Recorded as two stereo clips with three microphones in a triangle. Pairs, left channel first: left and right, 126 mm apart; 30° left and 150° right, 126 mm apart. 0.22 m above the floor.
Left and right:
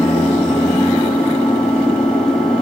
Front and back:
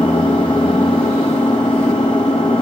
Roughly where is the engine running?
Ahead.